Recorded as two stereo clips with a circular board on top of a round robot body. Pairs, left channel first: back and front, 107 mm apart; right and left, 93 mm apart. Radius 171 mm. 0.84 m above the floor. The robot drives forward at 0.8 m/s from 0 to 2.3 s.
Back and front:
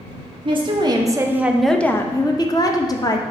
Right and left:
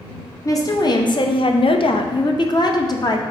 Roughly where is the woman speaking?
Ahead right.